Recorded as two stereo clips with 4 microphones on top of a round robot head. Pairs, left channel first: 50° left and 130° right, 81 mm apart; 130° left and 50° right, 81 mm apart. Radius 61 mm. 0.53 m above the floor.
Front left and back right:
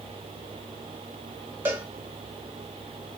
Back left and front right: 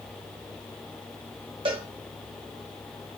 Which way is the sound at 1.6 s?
60° right.